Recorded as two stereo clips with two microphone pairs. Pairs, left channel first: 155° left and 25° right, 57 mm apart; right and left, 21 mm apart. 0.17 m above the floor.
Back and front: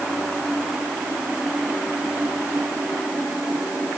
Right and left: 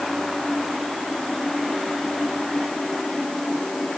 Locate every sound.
Only background noise.